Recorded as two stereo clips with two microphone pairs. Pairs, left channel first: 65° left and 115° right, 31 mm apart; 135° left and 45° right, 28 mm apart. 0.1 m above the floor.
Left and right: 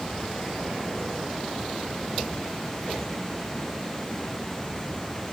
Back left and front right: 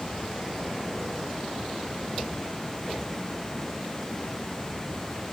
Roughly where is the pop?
No pop in this recording.